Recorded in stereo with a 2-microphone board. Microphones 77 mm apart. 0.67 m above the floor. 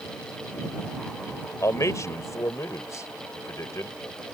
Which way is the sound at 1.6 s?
45° left (ahead or behind).